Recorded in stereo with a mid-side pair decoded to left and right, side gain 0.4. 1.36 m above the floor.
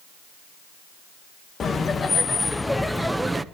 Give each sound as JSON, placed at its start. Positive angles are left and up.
{"t": 1.6, "sound": "laughter", "azimuth_deg": 50, "distance_m": 1.9}